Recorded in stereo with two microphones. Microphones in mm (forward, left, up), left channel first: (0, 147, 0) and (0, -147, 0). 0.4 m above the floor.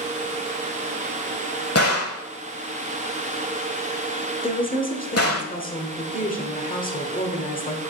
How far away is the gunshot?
About 1.1 m.